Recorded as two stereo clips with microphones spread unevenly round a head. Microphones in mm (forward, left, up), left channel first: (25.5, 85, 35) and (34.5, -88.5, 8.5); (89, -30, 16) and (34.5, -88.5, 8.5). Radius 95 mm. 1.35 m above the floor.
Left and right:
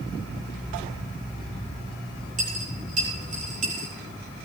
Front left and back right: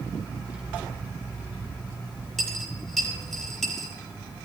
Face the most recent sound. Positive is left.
turn(degrees=-40)